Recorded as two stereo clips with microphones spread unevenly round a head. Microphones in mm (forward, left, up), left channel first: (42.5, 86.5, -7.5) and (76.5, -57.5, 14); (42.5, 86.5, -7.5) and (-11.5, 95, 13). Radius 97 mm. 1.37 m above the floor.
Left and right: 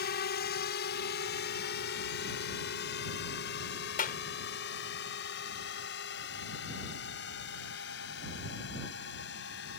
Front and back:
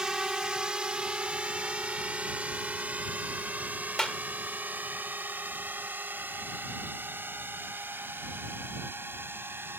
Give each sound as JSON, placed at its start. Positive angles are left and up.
{"t": 0.0, "sound": "a drone", "azimuth_deg": 95}
{"t": 4.0, "sound": "a clap", "azimuth_deg": 75}